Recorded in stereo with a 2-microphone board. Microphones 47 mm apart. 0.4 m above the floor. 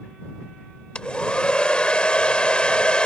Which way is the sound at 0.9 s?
20° left (ahead or behind).